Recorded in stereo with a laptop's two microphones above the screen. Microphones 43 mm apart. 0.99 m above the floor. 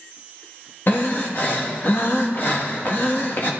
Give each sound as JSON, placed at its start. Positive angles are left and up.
{"t": 0.9, "sound": "breathing", "side_deg": 50, "distance_m": 1.6}